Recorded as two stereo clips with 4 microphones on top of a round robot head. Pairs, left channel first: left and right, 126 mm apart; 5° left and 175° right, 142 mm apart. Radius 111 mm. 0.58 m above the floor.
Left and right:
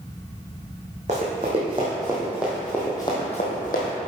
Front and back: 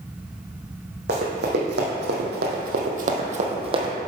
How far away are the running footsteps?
About 1.8 m.